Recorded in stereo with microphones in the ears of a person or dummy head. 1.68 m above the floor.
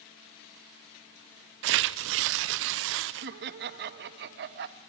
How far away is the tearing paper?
About 0.7 m.